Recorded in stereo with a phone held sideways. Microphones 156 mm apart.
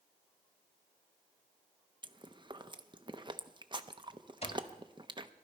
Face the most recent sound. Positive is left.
turn(degrees=40)  # may be behind; listen again after turning